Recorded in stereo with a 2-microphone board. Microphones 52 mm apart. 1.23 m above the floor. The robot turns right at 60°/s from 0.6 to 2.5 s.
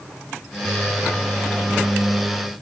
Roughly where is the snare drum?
I don't hear a snare drum.